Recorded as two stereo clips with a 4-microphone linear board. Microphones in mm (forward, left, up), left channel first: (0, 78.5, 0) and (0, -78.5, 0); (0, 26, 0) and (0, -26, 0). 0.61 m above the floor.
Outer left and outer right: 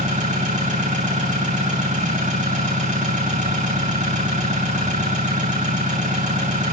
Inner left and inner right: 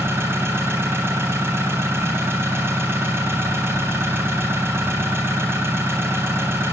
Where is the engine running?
45° right (ahead or behind), 3.5 m.